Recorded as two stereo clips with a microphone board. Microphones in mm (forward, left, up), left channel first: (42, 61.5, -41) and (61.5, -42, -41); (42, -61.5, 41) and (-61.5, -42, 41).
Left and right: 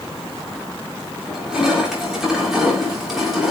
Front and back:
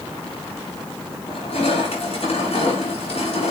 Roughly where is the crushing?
Ahead.